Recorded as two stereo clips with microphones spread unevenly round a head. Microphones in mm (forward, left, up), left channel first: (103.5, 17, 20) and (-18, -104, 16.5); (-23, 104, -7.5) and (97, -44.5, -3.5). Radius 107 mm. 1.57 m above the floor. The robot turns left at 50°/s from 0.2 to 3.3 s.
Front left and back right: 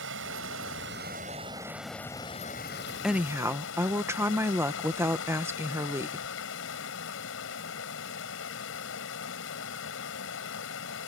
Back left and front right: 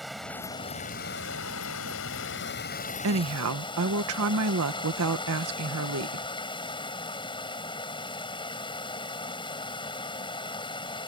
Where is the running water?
140° right; by 11.1 s 65° left.